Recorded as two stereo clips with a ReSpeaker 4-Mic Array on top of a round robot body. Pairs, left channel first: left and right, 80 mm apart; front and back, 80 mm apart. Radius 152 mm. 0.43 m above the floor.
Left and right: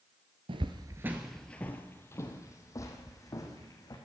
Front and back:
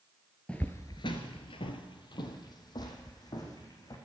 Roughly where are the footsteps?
Right.